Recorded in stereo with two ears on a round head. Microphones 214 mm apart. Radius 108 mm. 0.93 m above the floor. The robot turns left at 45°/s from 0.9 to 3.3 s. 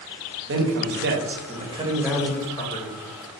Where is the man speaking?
120° right, 0.7 m; by 3.0 s 145° left, 0.7 m.